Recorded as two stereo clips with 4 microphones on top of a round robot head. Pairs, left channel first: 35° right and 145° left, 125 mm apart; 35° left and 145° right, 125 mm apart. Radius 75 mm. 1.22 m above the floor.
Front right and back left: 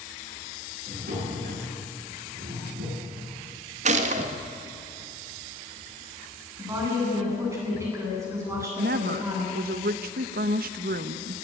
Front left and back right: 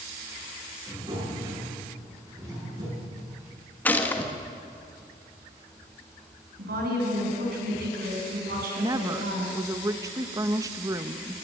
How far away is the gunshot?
About 1.6 m.